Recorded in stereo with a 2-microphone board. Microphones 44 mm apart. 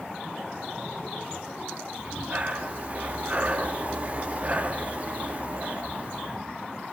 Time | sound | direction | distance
2.0 | breathing | 35° right (ahead or behind) | 0.7 m